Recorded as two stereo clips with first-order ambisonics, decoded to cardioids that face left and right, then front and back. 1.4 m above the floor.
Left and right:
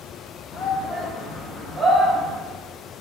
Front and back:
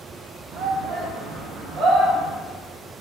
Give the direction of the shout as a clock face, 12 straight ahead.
7 o'clock.